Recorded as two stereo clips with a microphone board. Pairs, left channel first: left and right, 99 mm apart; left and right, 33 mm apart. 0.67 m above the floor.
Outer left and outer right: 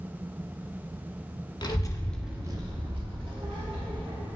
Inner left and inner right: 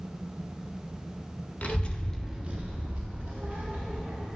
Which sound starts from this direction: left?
A child speaking, at 1.6 s.